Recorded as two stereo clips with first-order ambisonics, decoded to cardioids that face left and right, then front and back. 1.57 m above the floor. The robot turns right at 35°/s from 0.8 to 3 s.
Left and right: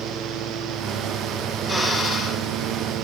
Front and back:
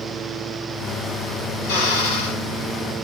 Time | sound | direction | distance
1.6 | a drill | 10° right | 5.5 m